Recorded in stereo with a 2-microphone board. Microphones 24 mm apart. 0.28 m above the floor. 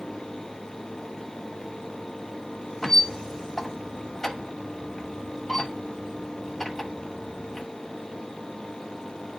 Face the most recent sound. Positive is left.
turn(degrees=20)  # may be behind; listen again after turning